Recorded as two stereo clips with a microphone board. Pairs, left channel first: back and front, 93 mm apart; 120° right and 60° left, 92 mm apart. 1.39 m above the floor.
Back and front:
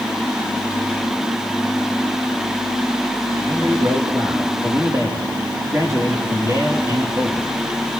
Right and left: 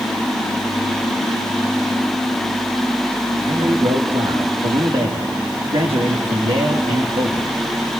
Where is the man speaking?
60° left, 3.5 m.